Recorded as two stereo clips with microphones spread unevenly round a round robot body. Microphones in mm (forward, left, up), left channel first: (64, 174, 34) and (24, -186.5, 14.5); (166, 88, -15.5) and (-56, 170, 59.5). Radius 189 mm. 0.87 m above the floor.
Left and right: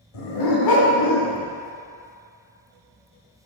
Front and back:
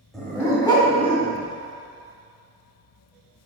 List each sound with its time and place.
0.1 s a dog barking: 70° left, 1.8 m; by 1.4 s 45° left, 3 m